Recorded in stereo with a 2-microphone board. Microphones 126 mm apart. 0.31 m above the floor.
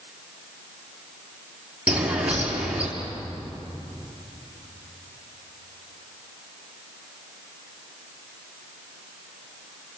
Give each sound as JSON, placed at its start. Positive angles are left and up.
{"t": 1.9, "sound": "a bird", "side_deg": -10, "distance_m": 5.0}